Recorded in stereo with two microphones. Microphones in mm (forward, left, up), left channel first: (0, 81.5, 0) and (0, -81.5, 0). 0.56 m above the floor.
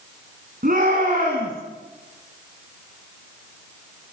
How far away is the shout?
About 6 m.